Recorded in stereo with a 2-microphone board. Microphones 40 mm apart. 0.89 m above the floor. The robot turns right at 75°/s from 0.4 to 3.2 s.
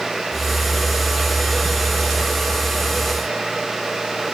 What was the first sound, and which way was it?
Only background noise.